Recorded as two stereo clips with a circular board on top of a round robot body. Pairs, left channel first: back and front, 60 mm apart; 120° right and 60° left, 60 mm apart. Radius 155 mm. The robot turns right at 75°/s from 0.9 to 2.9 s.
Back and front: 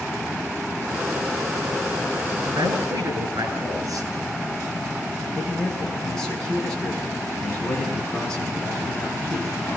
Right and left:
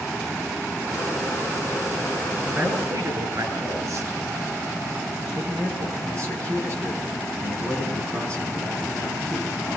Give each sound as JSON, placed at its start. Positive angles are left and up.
{"t": 2.5, "sound": "a man speaking", "azimuth_deg": 0, "distance_m": 9.5}
{"t": 5.3, "sound": "a man speaking", "azimuth_deg": 100, "distance_m": 6.5}